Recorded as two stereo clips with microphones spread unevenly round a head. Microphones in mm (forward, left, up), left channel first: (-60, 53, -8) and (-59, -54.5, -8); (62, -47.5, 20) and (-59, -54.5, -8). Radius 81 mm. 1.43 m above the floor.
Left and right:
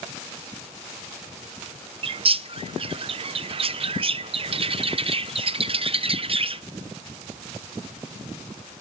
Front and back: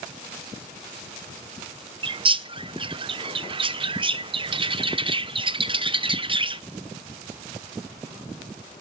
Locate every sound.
2.0 s a bird: 125° right, 0.7 m